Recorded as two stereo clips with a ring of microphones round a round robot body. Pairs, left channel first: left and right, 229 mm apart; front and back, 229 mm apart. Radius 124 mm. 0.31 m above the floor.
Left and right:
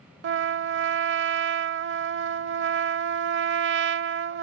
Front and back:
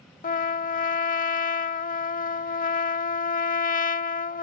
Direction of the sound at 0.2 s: 55° right.